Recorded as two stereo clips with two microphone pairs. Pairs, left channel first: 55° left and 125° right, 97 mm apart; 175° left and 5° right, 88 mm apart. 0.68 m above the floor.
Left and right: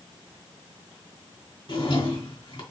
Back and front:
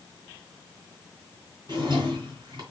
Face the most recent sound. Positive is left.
turn(degrees=30)